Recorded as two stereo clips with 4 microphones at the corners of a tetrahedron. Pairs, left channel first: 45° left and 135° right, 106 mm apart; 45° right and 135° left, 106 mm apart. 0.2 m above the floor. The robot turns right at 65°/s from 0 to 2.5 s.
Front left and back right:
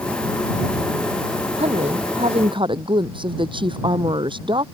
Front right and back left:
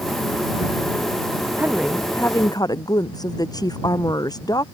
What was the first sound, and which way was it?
A woman speaking, 155° right.